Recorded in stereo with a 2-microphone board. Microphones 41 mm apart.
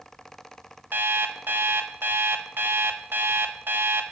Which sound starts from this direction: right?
An alarm clock, at 0.9 s.